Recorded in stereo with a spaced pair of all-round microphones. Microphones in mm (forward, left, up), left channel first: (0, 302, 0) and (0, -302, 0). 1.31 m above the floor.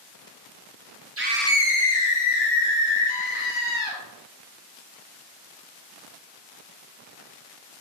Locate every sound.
1.2 s a scream: 25° right (ahead or behind), 0.6 m; by 4.0 s 80° left, 3 m